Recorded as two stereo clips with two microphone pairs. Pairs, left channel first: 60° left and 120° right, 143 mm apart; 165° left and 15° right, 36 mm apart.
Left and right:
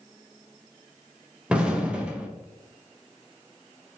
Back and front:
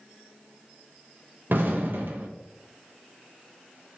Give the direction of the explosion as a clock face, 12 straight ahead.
1 o'clock.